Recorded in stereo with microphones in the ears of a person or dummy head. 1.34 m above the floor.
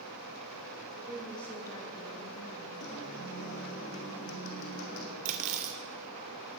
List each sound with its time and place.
1.0 s a woman speaking: 15° right (ahead or behind), 1.3 m; by 2.7 s 55° left (ahead or behind), 1.6 m
2.8 s a guitar: 60° left (ahead or behind), 1.7 m
5.2 s cutlery clinking: 40° right (ahead or behind), 0.9 m